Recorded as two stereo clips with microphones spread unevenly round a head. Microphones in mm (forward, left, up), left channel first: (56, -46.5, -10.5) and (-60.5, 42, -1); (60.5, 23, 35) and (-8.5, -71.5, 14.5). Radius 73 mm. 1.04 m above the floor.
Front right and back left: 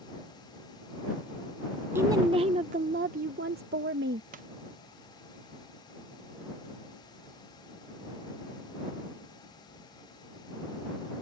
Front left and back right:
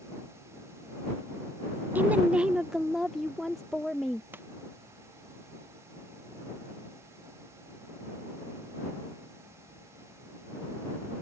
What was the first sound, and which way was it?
A woman speaking, 150° right.